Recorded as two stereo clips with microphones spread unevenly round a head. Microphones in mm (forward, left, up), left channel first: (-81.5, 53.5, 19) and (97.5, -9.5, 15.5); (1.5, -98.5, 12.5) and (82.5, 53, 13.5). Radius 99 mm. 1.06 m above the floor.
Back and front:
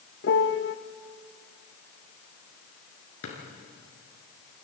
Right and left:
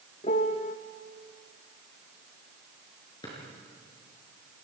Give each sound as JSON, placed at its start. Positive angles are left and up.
{"t": 0.2, "sound": "a piano", "azimuth_deg": -175, "distance_m": 0.8}
{"t": 3.2, "sound": "a drawer", "azimuth_deg": 170, "distance_m": 5.5}